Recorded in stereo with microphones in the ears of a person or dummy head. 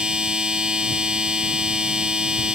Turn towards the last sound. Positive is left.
turn(degrees=0)  # may be behind; listen again after turning